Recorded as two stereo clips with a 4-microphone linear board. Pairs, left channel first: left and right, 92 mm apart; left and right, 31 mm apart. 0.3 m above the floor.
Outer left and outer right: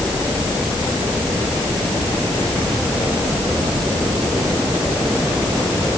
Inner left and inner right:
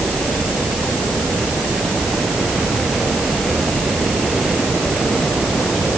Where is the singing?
No singing in this recording.